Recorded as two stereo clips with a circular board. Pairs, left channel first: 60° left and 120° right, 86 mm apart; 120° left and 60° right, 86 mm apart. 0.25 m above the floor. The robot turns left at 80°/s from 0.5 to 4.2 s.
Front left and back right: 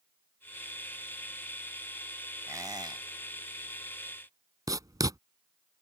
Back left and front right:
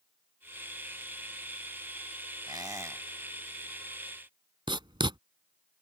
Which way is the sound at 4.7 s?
75° right.